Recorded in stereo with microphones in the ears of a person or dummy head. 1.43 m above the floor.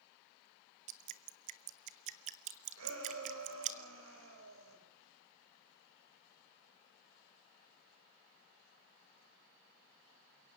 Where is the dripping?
35° right (ahead or behind), 0.9 m.